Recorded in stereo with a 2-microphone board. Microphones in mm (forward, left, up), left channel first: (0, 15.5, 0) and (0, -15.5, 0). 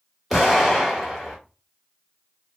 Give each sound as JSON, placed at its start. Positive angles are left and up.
{"t": 0.3, "sound": "an explosion", "side_deg": 0, "distance_m": 1.3}